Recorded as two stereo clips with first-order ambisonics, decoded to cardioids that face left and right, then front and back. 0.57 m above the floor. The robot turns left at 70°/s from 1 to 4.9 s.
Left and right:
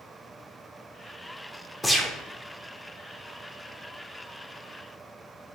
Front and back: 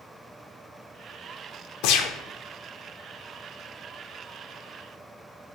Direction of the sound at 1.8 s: 5° left.